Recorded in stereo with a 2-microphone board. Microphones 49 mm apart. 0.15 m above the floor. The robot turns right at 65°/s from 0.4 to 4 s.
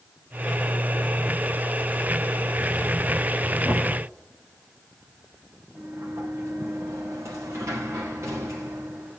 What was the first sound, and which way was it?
Knocking, 45° right (ahead or behind).